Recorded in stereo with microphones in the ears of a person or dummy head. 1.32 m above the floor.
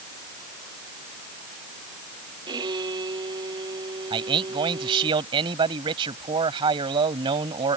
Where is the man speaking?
35° right (ahead or behind).